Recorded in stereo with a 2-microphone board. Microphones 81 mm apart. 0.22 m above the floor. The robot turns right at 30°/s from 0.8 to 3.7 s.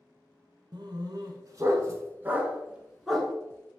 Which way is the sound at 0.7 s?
65° right (ahead or behind).